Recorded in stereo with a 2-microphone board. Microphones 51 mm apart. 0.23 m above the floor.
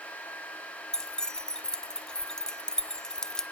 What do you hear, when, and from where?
0.9 s keys jangling: 15° left (ahead or behind), 0.8 m